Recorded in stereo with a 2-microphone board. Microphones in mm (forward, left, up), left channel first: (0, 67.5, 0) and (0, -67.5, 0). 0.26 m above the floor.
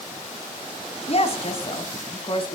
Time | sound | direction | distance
1.1 | a woman speaking | 45° left (ahead or behind) | 2.5 m